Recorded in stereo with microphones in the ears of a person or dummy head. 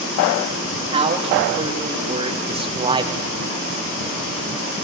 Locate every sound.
0.9 s a man speaking: 30° right (ahead or behind), 3 m; by 3.2 s 25° right (ahead or behind), 1.0 m